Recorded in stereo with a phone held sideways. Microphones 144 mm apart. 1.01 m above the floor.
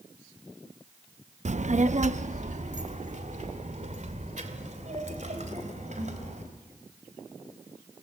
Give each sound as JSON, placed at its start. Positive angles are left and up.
{"t": 1.4, "sound": "a child speaking", "side_deg": -50, "distance_m": 0.5}